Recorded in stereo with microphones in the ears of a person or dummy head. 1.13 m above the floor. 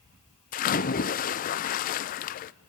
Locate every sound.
0.5 s a splash: 40° left (ahead or behind), 0.6 m